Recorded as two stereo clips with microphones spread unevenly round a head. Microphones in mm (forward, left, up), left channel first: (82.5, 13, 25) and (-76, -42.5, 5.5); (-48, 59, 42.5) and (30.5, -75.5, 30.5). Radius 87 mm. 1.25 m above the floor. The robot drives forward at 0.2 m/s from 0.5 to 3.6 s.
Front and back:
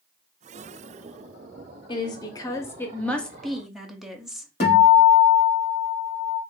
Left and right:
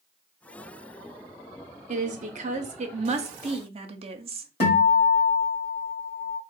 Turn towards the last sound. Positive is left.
turn(degrees=70)